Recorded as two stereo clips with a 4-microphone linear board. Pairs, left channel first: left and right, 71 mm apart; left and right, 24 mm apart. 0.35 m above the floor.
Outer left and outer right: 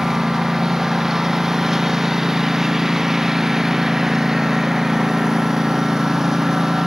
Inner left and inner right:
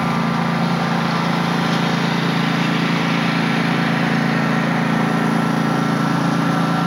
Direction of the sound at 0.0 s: 5° right (ahead or behind).